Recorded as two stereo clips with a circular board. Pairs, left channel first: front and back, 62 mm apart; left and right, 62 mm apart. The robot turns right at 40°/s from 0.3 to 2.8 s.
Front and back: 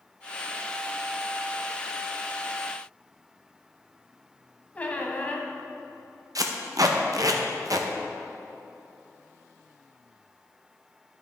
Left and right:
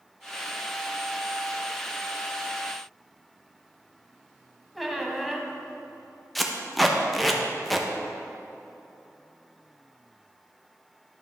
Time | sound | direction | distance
4.8 | a squeak | straight ahead | 0.9 m
6.3 | tape being pulled | straight behind | 0.7 m